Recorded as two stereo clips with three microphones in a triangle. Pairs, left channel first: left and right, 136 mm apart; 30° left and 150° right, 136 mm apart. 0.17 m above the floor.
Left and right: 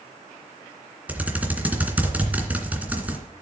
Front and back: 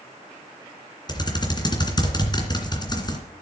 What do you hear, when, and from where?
1.1 s typing on a keyboard: 15° right, 2.5 m